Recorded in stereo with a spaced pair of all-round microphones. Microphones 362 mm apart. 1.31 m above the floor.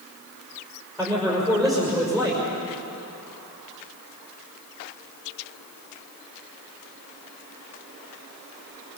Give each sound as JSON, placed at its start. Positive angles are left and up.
{"t": 1.0, "sound": "a man speaking", "side_deg": 0, "distance_m": 6.0}